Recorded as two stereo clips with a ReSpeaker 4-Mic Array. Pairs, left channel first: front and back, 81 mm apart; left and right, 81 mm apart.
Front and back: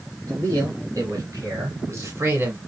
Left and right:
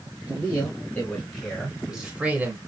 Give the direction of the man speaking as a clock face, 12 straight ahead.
7 o'clock.